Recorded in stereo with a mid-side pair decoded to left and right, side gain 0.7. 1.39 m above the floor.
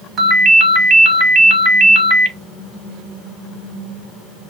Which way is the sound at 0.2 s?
35° right.